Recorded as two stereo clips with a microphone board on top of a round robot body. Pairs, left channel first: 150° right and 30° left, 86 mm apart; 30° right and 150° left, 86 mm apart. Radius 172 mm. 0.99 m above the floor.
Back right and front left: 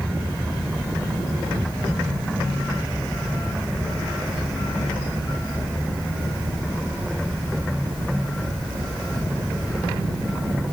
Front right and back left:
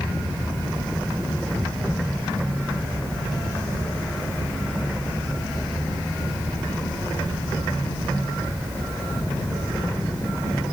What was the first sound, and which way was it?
Only background noise.